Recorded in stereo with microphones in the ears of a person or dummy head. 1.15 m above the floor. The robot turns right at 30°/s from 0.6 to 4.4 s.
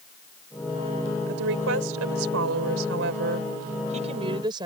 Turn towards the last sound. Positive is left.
turn(degrees=-25)